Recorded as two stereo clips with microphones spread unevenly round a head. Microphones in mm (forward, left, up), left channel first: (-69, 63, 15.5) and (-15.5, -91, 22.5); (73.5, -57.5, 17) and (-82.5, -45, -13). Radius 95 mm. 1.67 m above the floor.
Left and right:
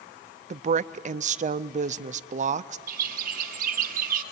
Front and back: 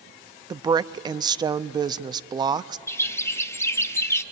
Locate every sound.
0.5 s a woman speaking: 115° right, 0.6 m
2.9 s a bird: 60° right, 0.8 m